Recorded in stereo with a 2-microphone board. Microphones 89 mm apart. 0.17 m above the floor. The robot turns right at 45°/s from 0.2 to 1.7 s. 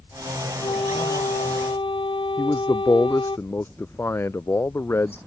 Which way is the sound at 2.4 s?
30° left (ahead or behind).